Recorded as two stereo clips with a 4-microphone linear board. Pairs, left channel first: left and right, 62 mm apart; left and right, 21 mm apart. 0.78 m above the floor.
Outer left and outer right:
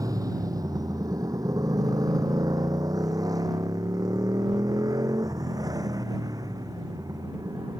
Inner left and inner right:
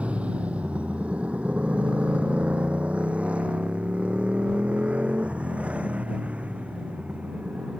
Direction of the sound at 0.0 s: 80° right.